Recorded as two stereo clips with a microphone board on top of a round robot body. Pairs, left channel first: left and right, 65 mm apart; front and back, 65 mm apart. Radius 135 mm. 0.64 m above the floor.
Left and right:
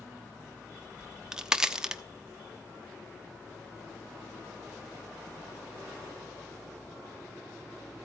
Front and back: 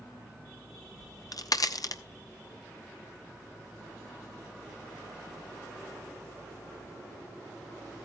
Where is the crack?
10° right, 1.2 m.